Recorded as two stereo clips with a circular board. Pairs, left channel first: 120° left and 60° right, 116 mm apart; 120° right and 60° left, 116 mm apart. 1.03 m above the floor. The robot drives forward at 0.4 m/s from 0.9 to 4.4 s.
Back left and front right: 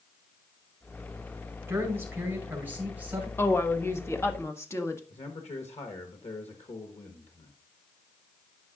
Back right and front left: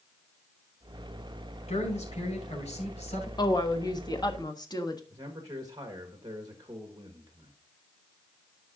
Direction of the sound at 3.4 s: 170° right.